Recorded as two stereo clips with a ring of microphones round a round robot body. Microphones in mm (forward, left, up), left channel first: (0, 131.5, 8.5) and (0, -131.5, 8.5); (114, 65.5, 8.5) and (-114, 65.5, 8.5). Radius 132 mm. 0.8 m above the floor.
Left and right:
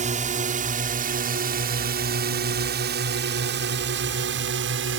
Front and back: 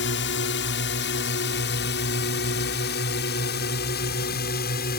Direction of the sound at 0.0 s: 30° right.